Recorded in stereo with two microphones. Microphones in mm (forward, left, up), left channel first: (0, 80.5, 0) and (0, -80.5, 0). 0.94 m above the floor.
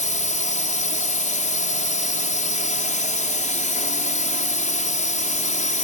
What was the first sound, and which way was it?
A drone, 45° left (ahead or behind).